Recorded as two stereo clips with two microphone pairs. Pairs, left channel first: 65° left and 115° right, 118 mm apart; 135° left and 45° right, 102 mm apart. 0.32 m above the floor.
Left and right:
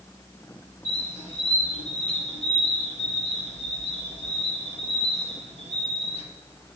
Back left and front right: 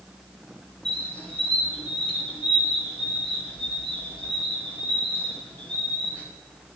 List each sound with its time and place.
0.8 s a squeak: 55° left, 3 m